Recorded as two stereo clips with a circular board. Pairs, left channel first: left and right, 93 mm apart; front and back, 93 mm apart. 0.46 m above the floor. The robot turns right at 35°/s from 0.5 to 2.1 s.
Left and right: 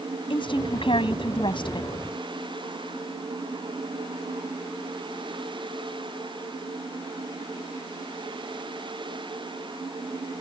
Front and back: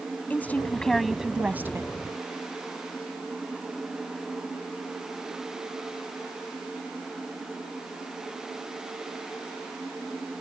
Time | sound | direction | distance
0.3 | a woman speaking | 70° left | ?